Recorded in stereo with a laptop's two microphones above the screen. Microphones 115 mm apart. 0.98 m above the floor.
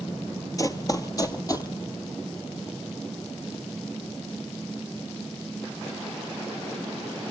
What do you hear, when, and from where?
0.6 s running footsteps: 30° left (ahead or behind), 1.1 m